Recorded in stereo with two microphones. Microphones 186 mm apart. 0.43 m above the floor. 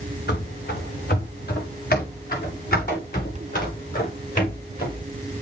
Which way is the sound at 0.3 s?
65° left (ahead or behind).